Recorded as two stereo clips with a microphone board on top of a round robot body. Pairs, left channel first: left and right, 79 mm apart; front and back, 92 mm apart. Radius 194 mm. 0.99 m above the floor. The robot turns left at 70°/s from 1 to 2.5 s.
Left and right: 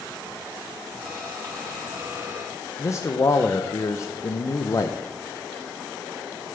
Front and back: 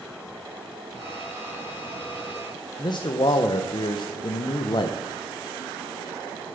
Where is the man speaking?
35° left, 0.8 m.